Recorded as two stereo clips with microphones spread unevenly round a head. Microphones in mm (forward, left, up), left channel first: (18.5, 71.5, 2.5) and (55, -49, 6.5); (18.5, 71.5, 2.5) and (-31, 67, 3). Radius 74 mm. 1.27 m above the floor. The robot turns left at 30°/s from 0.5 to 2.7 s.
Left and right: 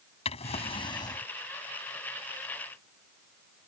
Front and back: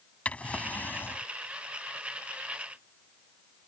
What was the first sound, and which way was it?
A drawer, 70° left.